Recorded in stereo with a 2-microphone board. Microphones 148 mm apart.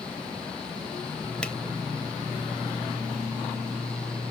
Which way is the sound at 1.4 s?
5° left (ahead or behind).